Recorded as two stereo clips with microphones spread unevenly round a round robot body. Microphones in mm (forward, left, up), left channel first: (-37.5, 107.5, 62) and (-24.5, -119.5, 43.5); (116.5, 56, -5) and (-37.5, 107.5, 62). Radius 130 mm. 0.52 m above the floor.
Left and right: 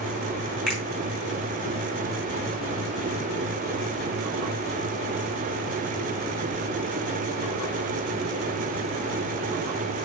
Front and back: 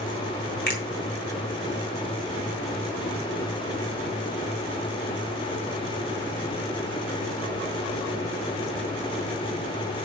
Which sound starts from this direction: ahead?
A finger snap, at 0.7 s.